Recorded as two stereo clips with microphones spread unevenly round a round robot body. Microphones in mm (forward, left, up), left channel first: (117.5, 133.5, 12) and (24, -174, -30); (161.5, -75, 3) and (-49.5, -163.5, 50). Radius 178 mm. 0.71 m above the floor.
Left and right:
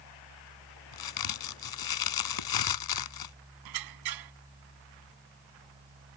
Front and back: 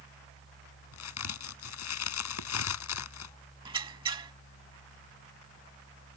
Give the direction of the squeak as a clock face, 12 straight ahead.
3 o'clock.